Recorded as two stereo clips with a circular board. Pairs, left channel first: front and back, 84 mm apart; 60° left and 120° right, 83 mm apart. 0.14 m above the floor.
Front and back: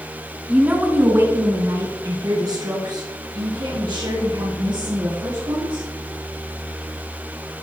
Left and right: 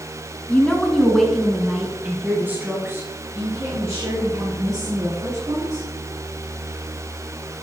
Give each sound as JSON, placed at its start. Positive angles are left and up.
{"t": 0.5, "sound": "a woman speaking", "azimuth_deg": 120, "distance_m": 1.3}